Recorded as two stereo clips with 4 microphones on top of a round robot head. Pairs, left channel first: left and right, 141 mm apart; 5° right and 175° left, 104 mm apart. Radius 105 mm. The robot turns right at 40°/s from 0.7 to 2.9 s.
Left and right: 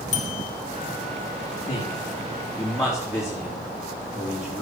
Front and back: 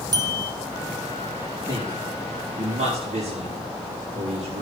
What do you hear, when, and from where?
0.1 s a bell: 125° left, 1.9 m
1.7 s a man speaking: 135° left, 4 m; by 4.6 s 175° right, 4 m